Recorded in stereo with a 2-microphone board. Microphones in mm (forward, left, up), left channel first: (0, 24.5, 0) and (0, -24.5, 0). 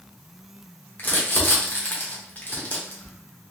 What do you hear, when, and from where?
1.0 s crumpling: 40° left (ahead or behind), 1.1 m